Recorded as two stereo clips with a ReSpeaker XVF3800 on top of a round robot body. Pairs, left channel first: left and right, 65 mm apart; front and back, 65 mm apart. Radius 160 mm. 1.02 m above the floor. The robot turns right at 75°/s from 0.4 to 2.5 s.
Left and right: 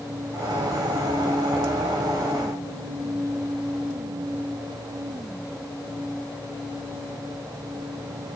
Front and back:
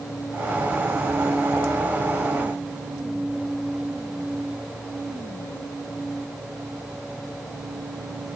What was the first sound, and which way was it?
Only background noise.